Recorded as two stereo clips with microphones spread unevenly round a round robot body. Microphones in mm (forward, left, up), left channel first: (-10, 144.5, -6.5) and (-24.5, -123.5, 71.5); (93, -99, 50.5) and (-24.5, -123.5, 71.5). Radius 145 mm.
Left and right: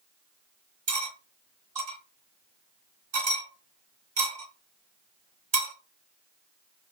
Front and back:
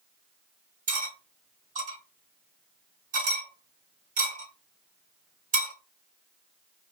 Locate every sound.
0.9 s cutlery clinking: 165° right, 1.7 m